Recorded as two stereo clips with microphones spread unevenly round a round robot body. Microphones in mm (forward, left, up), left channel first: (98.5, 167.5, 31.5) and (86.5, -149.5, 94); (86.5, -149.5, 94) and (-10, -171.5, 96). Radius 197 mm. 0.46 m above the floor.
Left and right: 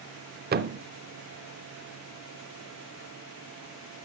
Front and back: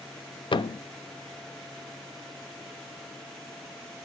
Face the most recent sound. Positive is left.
turn(degrees=-25)